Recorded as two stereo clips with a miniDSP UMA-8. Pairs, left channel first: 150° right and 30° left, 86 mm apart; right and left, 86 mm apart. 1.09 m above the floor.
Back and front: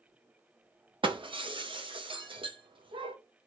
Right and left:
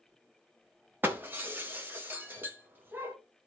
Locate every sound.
1.0 s breaking glass: 25° left, 0.7 m